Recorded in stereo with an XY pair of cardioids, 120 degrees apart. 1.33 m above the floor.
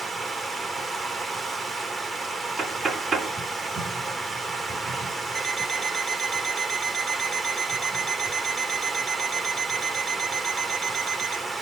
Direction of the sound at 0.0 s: 30° right.